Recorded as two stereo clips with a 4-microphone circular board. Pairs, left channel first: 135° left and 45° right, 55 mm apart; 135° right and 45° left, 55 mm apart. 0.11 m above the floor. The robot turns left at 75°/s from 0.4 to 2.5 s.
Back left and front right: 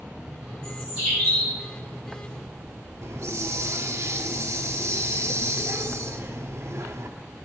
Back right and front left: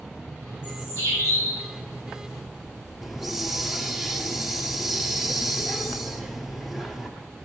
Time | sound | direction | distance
0.6 | a bird | 85° right | 7 m
3.0 | a hiss | 40° right | 1.0 m